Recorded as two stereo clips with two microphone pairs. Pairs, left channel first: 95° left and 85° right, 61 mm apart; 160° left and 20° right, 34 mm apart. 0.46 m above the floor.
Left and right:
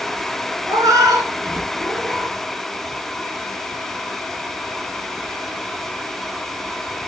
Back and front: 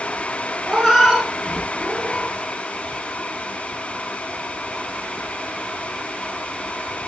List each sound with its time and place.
0.7 s a cat meowing: 105° right, 1.4 m